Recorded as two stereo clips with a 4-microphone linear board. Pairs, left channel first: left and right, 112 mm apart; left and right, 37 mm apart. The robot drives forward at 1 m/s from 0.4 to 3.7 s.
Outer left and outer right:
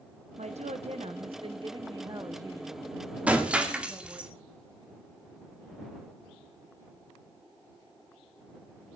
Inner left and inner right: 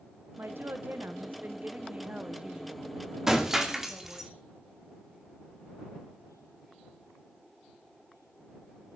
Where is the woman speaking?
85° right, 1.4 m; by 4.3 s 20° right (ahead or behind), 3.5 m.